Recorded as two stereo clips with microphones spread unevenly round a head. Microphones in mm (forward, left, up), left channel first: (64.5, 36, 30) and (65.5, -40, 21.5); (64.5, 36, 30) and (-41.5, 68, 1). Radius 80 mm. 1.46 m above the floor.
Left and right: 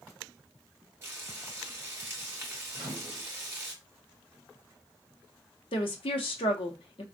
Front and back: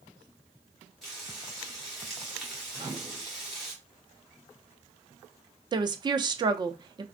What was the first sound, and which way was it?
Frying, 65° right.